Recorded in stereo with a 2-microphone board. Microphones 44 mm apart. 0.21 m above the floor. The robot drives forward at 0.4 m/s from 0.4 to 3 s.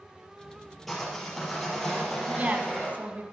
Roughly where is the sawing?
Centre.